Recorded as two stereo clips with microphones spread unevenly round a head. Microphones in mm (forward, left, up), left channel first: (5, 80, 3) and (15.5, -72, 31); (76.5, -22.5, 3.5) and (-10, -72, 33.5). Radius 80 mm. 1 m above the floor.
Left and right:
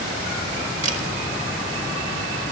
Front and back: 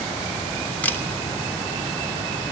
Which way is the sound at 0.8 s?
45° right.